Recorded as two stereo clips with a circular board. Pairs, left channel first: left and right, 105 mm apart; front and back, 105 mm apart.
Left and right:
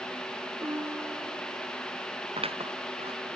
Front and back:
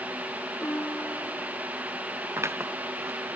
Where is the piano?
60° right.